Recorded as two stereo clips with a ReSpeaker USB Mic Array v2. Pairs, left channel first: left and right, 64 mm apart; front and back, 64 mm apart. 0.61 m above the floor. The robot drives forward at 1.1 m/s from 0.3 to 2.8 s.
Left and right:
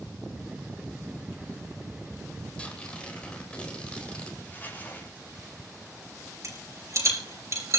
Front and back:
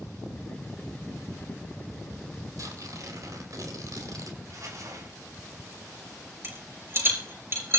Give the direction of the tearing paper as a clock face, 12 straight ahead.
7 o'clock.